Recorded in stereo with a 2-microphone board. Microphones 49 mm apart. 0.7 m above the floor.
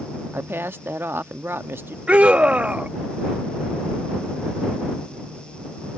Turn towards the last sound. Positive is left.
turn(degrees=-30)  # may be behind; listen again after turning